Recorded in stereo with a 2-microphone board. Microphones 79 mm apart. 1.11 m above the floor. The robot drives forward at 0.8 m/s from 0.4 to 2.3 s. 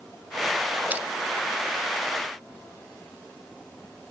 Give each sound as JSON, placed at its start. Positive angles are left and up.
{"t": 0.9, "sound": "crushing", "side_deg": -20}